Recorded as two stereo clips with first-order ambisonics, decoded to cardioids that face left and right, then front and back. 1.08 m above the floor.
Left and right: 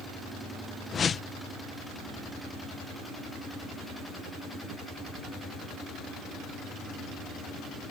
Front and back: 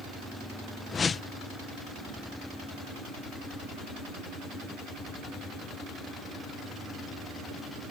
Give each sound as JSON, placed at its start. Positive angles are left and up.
{"t": 0.9, "sound": "a whoosh", "azimuth_deg": 50}